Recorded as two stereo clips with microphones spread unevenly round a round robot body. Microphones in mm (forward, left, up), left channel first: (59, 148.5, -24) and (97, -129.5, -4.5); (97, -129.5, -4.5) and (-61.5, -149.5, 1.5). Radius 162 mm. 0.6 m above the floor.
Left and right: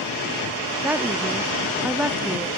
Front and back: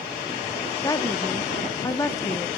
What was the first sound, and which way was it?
A woman speaking, straight ahead.